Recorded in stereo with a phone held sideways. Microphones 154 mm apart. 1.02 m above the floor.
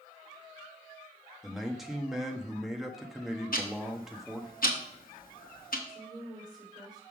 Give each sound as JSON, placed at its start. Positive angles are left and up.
{"t": 1.4, "sound": "a man speaking", "side_deg": 0, "distance_m": 1.1}
{"t": 3.5, "sound": "ticking", "side_deg": 70, "distance_m": 1.3}
{"t": 5.9, "sound": "a woman speaking", "side_deg": -25, "distance_m": 4.0}